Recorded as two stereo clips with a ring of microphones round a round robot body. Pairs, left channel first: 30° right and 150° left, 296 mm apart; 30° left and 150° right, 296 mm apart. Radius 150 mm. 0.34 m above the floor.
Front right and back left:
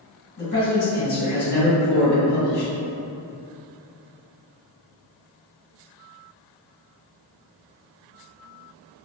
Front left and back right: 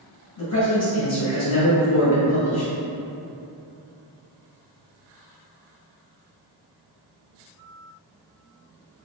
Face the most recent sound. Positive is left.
turn(degrees=15)